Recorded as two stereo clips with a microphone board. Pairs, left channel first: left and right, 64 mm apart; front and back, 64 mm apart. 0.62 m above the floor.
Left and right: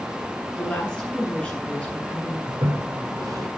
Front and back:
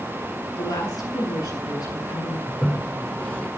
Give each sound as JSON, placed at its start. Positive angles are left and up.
{"t": 0.6, "sound": "a woman speaking", "azimuth_deg": 15, "distance_m": 9.5}
{"t": 2.5, "sound": "a toilet flushing", "azimuth_deg": -70, "distance_m": 3.5}